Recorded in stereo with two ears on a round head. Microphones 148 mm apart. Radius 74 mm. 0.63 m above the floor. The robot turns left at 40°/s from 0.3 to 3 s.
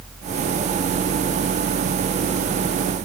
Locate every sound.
Only background noise.